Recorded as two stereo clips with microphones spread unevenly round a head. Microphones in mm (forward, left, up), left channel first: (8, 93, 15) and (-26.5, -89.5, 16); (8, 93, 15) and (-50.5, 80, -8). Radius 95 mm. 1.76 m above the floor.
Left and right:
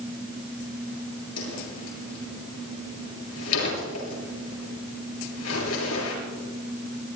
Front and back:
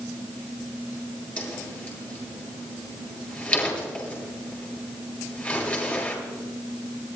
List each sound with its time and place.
1.4 s a whoosh: 80° left, 9 m